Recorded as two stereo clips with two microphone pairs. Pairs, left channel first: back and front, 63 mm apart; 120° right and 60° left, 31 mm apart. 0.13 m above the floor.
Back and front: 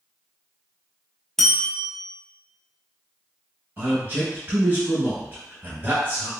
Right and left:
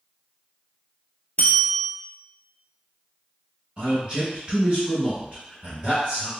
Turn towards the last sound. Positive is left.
turn(degrees=20)